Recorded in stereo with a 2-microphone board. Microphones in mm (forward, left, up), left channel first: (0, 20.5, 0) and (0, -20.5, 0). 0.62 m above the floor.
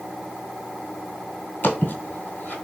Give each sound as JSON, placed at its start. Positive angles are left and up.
{"t": 1.6, "sound": "footsteps", "side_deg": 45, "distance_m": 1.4}